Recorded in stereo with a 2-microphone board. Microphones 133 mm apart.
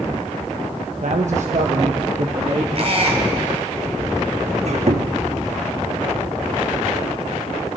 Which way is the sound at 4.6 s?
55° right (ahead or behind).